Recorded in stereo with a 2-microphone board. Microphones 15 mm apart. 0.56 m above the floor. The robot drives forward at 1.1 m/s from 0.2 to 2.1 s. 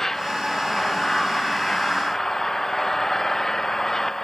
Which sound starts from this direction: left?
An engine running, at 0.0 s.